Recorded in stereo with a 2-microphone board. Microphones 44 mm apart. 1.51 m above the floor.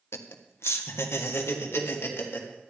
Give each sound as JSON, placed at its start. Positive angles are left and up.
{"t": 0.1, "sound": "laughter", "side_deg": 85, "distance_m": 1.2}